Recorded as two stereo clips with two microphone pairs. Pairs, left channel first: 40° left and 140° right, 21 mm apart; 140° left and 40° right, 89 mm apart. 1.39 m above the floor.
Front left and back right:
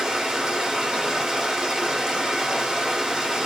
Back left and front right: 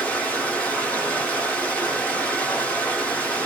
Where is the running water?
155° right, 1.1 m.